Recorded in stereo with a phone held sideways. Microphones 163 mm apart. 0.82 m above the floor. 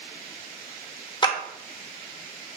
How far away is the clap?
About 0.6 m.